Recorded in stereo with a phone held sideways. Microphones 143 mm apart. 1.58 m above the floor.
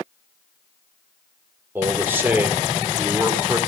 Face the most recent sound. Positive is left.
turn(degrees=-15)  # may be behind; listen again after turning